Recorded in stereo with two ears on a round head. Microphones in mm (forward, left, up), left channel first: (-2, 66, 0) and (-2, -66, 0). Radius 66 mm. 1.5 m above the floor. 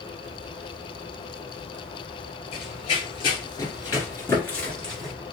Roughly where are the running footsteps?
Left.